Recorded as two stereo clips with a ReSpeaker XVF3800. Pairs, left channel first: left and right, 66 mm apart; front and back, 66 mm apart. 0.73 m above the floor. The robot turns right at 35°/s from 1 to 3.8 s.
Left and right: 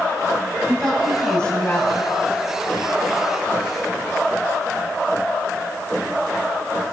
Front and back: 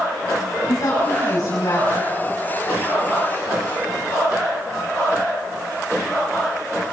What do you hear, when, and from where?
0.7 s a woman speaking: straight ahead, 6 m; by 2.1 s 35° left, 6 m